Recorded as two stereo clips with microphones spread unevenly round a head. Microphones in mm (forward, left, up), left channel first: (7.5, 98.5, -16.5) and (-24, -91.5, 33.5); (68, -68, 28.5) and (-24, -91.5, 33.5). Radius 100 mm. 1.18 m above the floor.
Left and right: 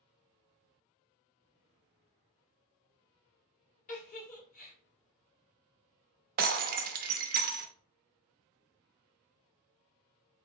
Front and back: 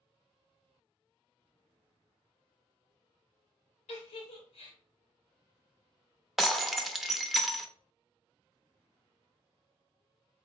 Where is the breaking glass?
80° right, 0.6 m.